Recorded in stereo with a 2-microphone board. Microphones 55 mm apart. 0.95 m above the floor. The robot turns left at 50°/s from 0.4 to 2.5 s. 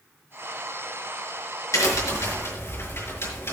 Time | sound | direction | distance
1.7 | a crack | 85° left | 5 m